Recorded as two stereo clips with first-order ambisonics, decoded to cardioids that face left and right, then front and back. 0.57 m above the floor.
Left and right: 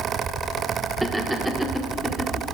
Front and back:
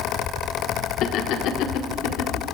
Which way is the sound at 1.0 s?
10° right.